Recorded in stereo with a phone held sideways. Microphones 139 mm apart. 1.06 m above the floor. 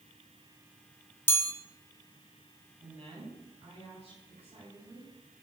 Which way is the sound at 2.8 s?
55° right (ahead or behind).